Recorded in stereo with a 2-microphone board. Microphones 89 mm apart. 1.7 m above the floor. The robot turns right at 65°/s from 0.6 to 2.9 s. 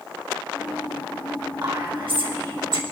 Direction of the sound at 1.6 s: 60° right (ahead or behind).